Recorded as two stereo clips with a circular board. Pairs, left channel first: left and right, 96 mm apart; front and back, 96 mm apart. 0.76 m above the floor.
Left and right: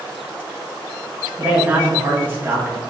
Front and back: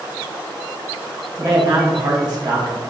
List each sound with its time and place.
1.4 s a man speaking: 150° right, 1.0 m